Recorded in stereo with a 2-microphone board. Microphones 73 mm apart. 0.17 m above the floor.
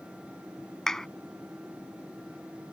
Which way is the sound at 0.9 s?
5° left (ahead or behind).